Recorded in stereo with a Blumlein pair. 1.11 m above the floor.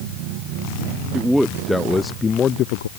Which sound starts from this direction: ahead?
A man speaking, at 1.1 s.